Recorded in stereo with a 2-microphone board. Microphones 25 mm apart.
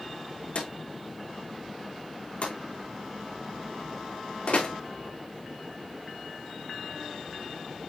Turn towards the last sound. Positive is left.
turn(degrees=65)  # may be behind; listen again after turning